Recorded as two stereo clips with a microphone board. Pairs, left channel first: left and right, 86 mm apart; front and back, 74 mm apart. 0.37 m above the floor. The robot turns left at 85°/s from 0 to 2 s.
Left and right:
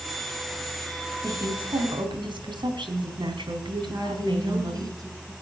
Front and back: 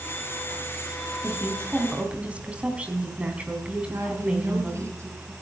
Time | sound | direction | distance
1.2 | a woman speaking | 40° right | 4 m
3.9 | a woman speaking | 135° right | 4.5 m